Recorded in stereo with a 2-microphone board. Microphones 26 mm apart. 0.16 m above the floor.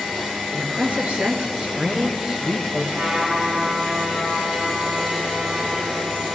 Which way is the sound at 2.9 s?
75° right (ahead or behind).